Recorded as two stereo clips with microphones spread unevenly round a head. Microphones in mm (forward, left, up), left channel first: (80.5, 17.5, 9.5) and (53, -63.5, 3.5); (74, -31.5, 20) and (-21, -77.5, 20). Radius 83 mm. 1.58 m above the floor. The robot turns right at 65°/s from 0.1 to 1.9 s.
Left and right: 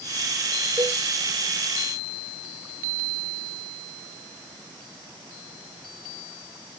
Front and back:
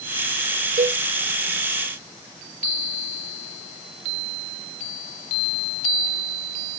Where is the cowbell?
175° left, 1.0 m; by 1.0 s 165° right, 1.0 m.